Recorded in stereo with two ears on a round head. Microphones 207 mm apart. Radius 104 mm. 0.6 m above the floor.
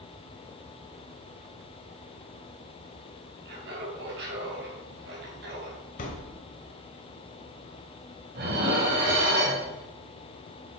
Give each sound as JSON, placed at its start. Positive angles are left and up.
{"t": 3.5, "sound": "laughter", "side_deg": -50, "distance_m": 3.5}
{"t": 6.0, "sound": "a thud", "side_deg": 35, "distance_m": 1.6}
{"t": 8.3, "sound": "dishes clattering", "side_deg": -45, "distance_m": 2.0}